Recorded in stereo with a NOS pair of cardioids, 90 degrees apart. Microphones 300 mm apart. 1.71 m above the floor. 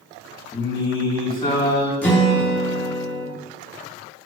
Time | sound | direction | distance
0.5 | singing | 20° left | 4 m
2.0 | a guitar | 5° left | 3 m